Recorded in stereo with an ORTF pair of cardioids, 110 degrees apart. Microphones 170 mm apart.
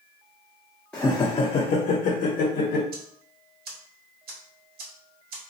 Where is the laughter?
5° left, 0.6 m; by 2.8 s 75° left, 1.2 m.